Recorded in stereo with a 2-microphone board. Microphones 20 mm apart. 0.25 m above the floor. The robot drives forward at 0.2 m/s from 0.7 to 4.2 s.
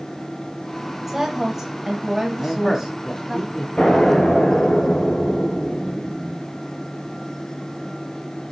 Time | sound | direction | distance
1.1 | a woman speaking | 20° right (ahead or behind) | 1.0 m
2.4 | a man speaking | 15° left (ahead or behind) | 1.6 m
3.8 | an explosion | 35° left (ahead or behind) | 3.5 m